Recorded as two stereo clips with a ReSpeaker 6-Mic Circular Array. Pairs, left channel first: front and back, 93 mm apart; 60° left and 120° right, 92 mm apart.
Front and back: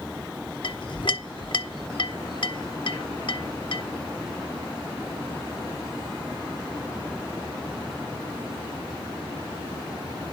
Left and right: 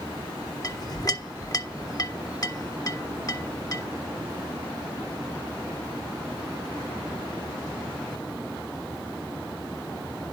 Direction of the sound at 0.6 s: 15° left.